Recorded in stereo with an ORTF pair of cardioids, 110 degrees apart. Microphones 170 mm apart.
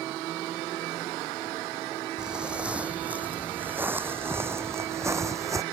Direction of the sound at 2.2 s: 5° right.